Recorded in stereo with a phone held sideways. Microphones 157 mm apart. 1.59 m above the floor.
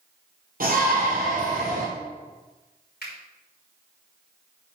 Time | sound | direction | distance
0.6 | a shout | 70° right (ahead or behind) | 4 m
3.0 | a finger snap | 85° left | 4.5 m